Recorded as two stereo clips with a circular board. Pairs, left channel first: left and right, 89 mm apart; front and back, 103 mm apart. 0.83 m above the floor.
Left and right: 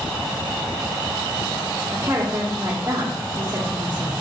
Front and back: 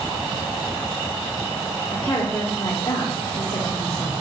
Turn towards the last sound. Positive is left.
turn(degrees=-55)